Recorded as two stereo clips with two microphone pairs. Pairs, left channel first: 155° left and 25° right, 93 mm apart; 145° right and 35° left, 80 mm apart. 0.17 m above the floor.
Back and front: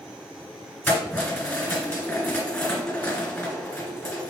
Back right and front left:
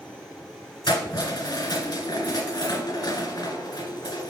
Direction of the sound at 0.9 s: 140° right.